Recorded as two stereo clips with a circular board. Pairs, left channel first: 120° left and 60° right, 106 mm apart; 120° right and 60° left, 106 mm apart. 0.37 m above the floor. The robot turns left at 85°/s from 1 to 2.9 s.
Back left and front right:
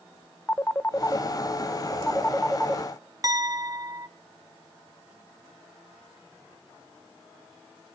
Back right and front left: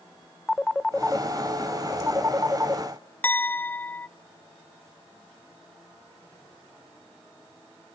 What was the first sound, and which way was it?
A phone ringing, 160° left.